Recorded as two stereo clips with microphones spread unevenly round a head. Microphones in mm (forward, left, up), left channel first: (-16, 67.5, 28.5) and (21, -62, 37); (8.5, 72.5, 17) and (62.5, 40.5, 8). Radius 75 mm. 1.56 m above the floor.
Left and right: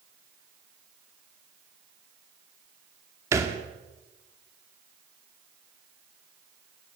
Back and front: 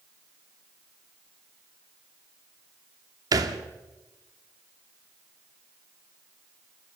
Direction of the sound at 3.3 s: 5° right.